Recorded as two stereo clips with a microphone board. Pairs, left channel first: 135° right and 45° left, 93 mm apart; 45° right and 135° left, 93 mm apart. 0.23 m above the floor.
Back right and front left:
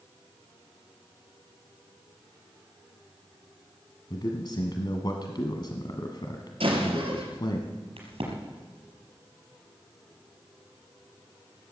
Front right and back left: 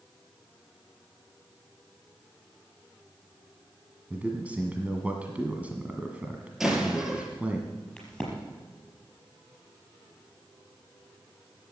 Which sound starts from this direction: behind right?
A man speaking, at 4.1 s.